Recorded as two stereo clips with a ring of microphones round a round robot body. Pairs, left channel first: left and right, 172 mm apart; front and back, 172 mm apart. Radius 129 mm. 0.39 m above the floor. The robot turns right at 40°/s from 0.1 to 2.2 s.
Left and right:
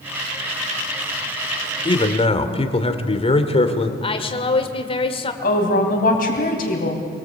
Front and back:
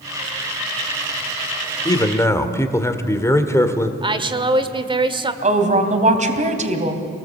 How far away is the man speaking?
About 1.7 m.